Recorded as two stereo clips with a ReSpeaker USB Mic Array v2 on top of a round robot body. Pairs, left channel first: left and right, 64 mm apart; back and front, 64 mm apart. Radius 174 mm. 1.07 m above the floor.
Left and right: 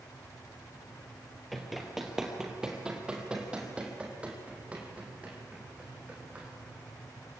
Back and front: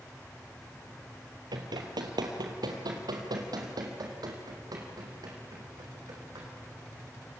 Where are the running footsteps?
Straight ahead, 1.7 m; by 6.5 s 20° right, 5 m.